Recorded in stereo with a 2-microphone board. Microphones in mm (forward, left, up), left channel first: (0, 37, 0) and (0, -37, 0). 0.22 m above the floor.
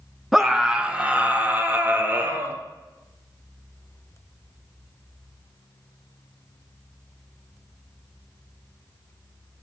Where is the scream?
Centre (ahead or behind), 2 m; by 2.6 s 30° right (ahead or behind), 4 m.